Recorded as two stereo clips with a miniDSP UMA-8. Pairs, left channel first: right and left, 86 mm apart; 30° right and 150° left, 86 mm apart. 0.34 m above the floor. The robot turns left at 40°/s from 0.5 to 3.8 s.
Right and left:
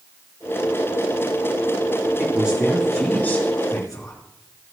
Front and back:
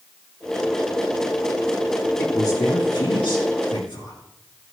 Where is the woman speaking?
20° left, 4 m; by 4.2 s 45° right, 4 m.